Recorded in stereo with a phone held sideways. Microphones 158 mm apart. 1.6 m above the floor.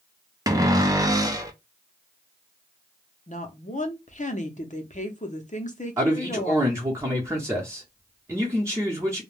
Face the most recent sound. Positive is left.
turn(degrees=-20)  # may be behind; listen again after turning